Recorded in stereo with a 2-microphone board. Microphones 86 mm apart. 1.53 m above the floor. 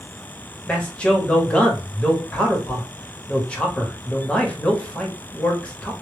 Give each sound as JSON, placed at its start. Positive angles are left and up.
{"t": 0.7, "sound": "a man speaking", "side_deg": 15, "distance_m": 0.9}